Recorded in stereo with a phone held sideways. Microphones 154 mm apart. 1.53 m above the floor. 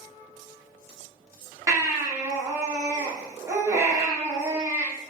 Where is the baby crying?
20° right (ahead or behind), 1.1 m.